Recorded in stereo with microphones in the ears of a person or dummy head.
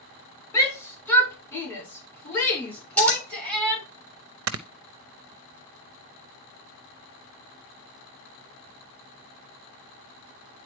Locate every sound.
0.5 s a shout: 15° left (ahead or behind), 4 m; by 3.8 s centre (ahead or behind), 6.5 m
3.0 s scissors: 5° left (ahead or behind), 2.5 m
4.5 s snoring: 70° right (ahead or behind), 0.6 m